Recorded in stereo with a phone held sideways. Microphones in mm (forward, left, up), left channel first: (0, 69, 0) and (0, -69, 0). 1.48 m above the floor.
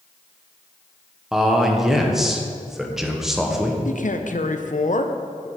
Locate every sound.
1.3 s a man speaking: centre (ahead or behind), 1.1 m
3.9 s a man speaking: 70° left (ahead or behind), 0.7 m